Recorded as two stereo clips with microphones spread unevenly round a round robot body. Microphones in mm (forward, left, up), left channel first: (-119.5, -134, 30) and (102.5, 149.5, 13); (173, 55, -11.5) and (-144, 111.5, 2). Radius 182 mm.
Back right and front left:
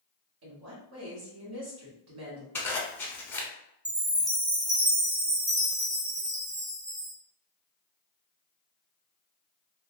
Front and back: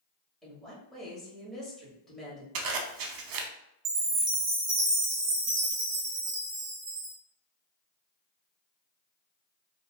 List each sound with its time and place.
0.4 s a woman speaking: 75° left, 1.4 m
2.5 s a zipper: 150° left, 0.6 m
3.9 s a chime: 125° left, 0.9 m